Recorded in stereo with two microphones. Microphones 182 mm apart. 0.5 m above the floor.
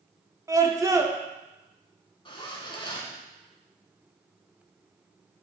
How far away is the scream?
About 0.7 m.